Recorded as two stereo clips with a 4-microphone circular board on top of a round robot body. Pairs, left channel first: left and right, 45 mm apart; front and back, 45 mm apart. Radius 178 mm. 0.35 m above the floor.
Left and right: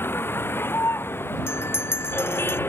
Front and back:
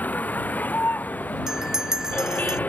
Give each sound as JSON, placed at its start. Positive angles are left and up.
{"t": 0.0, "sound": "a vehicle", "azimuth_deg": 50}
{"t": 1.5, "sound": "a bell", "azimuth_deg": 105}